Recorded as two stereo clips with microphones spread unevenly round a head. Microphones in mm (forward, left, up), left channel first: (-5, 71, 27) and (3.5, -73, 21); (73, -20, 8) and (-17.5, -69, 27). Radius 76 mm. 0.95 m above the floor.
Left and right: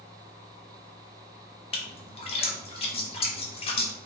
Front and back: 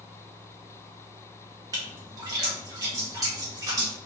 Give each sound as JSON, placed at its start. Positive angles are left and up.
{"t": 1.7, "sound": "a splash", "azimuth_deg": 145, "distance_m": 0.7}